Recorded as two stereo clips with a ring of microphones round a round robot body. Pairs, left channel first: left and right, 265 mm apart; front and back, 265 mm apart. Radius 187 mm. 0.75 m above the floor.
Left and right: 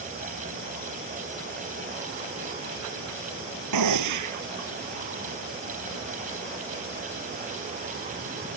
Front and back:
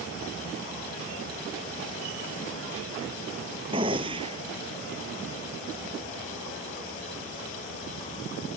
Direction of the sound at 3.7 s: 105° right.